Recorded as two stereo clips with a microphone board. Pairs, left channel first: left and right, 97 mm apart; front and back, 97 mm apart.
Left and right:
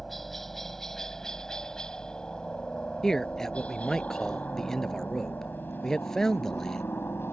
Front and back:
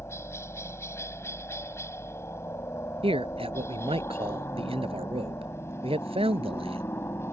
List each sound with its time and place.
0.0 s a helicopter: 5° left; by 7.3 s 40° left
3.0 s a man speaking: 175° left